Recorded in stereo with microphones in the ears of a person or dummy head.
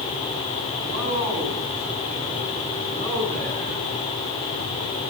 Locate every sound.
0.8 s a man speaking: 30° right (ahead or behind), 9.5 m; by 3.8 s 45° right (ahead or behind), 12 m